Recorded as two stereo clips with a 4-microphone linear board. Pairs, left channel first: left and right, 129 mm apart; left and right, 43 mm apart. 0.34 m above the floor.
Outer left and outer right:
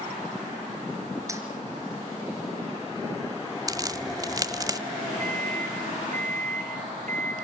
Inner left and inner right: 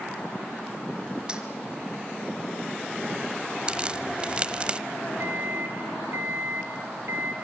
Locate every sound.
1.3 s keys jangling: 20° right (ahead or behind), 4 m
3.7 s a crack: 25° right (ahead or behind), 1.1 m
5.2 s a microwave: 65° right (ahead or behind), 3 m